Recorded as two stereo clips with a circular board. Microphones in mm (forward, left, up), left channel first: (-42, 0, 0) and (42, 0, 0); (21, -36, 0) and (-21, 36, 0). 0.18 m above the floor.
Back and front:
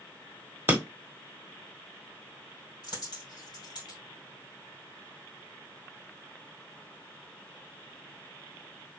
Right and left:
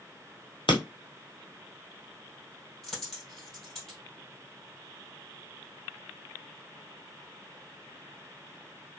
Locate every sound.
0.7 s breaking glass: 65° right, 1.2 m
2.8 s a dropped coin: 150° right, 2.5 m